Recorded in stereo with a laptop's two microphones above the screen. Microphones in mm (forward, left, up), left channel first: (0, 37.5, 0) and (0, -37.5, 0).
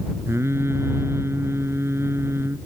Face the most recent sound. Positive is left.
turn(degrees=-35)  # may be behind; listen again after turning